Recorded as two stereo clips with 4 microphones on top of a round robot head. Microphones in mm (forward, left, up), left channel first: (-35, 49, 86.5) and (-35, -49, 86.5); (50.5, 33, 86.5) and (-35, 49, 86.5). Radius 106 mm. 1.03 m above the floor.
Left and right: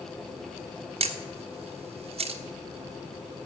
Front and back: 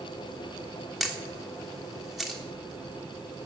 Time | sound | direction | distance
1.0 | a camera shutter | 105° right | 1.3 m